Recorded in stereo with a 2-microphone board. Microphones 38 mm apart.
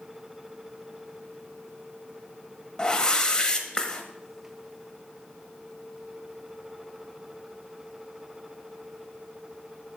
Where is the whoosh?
20° left (ahead or behind), 0.8 m.